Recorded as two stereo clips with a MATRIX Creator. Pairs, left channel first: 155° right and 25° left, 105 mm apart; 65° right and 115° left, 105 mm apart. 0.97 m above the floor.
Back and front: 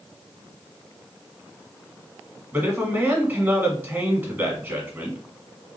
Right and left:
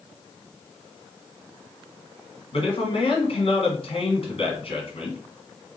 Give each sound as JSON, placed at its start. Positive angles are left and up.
{"t": 2.5, "sound": "a man speaking", "azimuth_deg": -45, "distance_m": 1.6}